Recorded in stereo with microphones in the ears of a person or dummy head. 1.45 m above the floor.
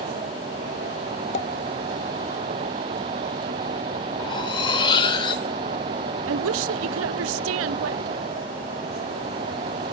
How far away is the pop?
About 0.8 m.